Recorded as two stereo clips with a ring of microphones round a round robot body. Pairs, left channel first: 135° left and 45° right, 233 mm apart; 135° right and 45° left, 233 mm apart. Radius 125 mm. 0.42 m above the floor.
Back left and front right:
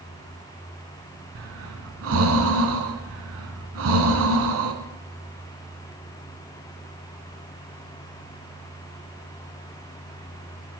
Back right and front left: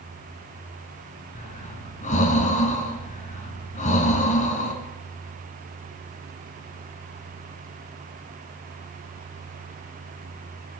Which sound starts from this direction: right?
Breathing, at 1.4 s.